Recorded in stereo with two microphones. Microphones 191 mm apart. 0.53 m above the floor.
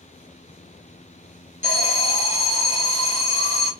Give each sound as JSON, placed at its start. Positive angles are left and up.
{"t": 1.6, "sound": "an alarm", "side_deg": 40, "distance_m": 2.5}